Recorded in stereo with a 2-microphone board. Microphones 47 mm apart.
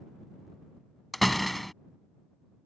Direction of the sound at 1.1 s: 5° left (ahead or behind).